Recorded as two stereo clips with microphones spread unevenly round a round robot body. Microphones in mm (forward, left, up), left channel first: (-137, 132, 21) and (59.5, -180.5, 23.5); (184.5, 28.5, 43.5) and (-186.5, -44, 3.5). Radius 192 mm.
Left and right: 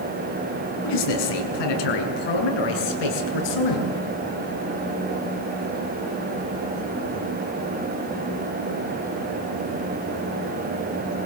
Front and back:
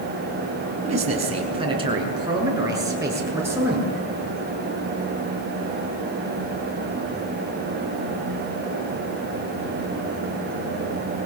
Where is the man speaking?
120° left, 5.5 m; by 4.0 s 105° left, 7.5 m.